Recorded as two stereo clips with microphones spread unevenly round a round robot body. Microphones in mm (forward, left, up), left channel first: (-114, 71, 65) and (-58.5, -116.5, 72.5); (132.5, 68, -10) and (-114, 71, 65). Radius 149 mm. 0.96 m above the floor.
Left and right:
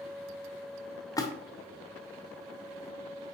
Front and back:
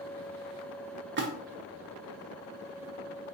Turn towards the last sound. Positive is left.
turn(degrees=155)